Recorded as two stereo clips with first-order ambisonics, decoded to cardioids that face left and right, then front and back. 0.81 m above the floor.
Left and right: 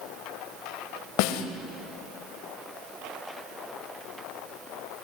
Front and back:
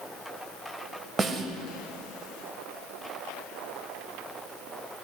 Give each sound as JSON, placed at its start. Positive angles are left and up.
{"t": 1.2, "sound": "a snare drum", "azimuth_deg": 105, "distance_m": 1.6}